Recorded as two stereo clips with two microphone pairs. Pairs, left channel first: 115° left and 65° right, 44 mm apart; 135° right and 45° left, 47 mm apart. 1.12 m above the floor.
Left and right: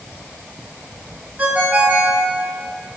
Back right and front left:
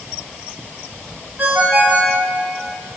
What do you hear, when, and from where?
1.4 s a ringtone: 10° right, 5 m